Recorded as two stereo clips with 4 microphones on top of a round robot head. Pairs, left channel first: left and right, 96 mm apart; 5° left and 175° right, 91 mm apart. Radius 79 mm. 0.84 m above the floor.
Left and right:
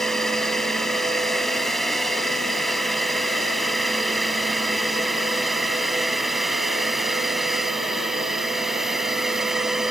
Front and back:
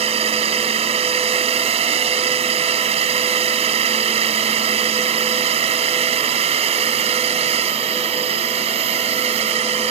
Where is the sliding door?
No sliding door in this recording.